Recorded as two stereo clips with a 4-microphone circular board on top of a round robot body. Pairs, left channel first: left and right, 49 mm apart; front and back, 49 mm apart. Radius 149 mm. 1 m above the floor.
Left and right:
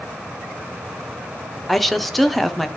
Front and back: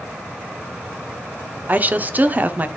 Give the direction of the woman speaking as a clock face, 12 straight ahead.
6 o'clock.